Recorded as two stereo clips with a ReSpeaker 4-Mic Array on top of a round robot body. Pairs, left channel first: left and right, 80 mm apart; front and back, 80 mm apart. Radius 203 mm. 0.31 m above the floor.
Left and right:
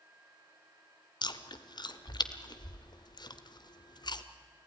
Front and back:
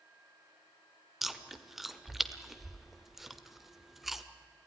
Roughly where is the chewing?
Left.